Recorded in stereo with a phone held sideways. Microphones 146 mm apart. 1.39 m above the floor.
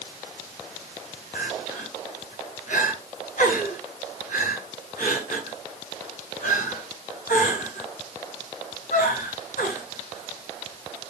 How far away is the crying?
About 7 m.